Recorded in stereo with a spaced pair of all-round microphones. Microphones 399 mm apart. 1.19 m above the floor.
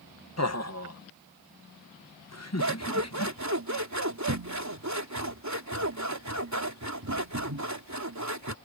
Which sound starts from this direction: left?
Laughter, at 0.4 s.